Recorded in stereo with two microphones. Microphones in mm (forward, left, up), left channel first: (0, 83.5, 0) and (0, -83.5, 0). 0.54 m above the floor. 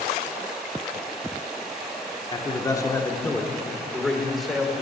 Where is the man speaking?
25° left (ahead or behind), 1.3 m; by 4.8 s 5° right (ahead or behind), 2.0 m.